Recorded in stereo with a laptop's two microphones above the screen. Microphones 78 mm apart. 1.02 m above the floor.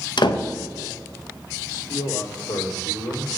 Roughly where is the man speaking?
Left.